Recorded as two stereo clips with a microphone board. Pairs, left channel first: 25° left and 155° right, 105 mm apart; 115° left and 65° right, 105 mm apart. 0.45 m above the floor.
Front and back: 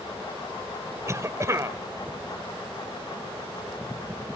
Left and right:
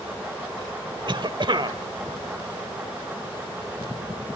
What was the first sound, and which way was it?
A cough, 100° right.